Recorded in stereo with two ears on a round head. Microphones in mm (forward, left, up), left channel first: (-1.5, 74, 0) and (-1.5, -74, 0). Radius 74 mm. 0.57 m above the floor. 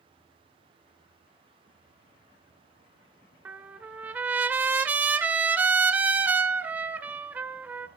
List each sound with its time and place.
3.5 s a trumpet: 10° right (ahead or behind), 1.7 m